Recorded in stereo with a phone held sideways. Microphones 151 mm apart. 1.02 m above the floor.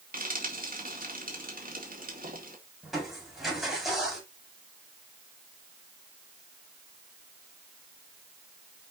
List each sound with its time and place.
0.1 s frying: 70° right (ahead or behind), 2.5 m
2.8 s crushing: centre (ahead or behind), 4.5 m